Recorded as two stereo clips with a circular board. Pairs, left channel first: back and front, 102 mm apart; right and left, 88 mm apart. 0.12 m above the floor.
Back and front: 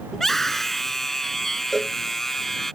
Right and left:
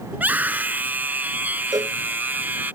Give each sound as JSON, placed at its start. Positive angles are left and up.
{"t": 0.1, "sound": "a scream", "azimuth_deg": 100}
{"t": 1.7, "sound": "a cowbell", "azimuth_deg": 95}